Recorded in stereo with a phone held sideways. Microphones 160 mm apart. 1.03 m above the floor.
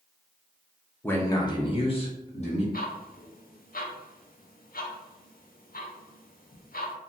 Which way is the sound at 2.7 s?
65° left (ahead or behind).